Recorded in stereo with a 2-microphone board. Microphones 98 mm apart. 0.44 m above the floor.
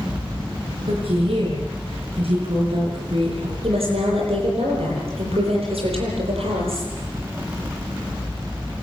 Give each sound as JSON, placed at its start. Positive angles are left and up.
{"t": 0.9, "sound": "a woman speaking", "side_deg": -80, "distance_m": 8.0}
{"t": 3.6, "sound": "a woman speaking", "side_deg": -85, "distance_m": 10.0}